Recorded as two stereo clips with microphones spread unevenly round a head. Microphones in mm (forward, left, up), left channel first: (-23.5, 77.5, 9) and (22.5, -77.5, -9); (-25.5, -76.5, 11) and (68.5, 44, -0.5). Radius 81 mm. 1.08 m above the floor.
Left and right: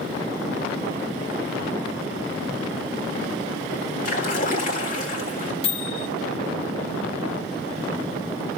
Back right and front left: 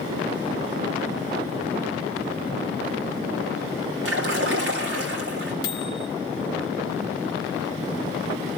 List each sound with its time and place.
4.0 s a splash: 60° left, 3.5 m
5.6 s a microwave: 165° left, 1.1 m